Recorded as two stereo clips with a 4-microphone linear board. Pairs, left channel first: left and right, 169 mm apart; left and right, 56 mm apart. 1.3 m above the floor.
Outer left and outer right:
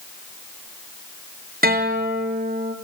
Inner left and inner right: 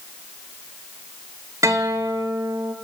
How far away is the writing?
I don't hear writing.